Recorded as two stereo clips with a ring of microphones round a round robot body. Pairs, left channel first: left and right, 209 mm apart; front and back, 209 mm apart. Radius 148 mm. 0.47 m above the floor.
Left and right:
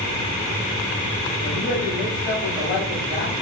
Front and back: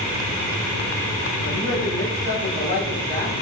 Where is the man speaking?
160° left, 3 m.